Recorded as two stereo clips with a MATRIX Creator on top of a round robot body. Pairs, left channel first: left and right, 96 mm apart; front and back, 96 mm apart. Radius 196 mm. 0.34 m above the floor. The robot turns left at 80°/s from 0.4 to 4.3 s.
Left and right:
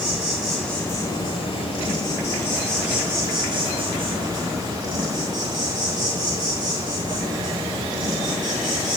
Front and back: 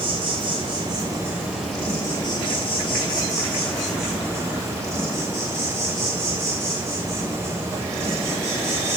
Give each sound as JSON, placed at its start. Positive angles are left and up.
{"t": 0.0, "sound": "an insect", "azimuth_deg": -170, "distance_m": 4.0}